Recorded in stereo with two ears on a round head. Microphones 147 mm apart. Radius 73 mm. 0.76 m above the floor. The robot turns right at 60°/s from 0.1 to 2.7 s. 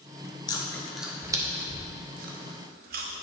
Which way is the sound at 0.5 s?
25° left (ahead or behind).